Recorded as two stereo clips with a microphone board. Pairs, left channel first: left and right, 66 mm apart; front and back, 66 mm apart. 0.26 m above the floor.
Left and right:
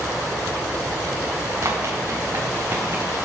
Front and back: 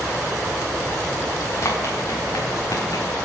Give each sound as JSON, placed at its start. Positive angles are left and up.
{"t": 1.6, "sound": "running footsteps", "azimuth_deg": -45, "distance_m": 3.0}